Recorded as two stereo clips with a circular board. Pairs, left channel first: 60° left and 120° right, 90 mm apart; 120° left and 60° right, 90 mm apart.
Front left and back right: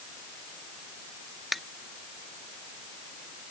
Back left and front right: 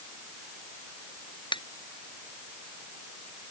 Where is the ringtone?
150° left.